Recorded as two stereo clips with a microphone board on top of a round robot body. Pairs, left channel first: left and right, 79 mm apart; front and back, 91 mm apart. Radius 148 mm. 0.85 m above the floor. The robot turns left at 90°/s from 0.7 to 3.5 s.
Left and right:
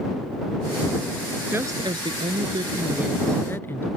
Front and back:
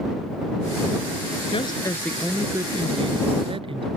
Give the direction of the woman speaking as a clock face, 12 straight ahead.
1 o'clock.